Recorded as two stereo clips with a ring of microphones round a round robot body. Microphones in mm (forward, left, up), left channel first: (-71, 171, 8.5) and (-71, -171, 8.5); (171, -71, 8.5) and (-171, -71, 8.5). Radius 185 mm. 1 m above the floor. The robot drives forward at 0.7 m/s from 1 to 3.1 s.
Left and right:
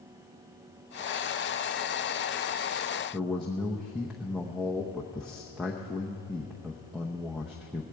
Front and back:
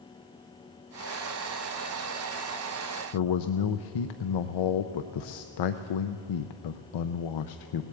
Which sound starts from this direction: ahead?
A man speaking, at 3.1 s.